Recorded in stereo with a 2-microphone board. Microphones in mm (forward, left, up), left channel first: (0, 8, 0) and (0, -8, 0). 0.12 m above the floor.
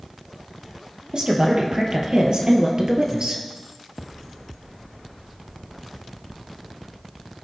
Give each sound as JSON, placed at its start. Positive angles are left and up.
{"t": 1.1, "sound": "a woman speaking", "side_deg": -55, "distance_m": 3.5}